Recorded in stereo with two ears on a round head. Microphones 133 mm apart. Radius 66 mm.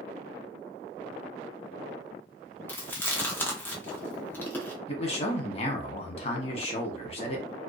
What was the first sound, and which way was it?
Chewing, 15° left (ahead or behind).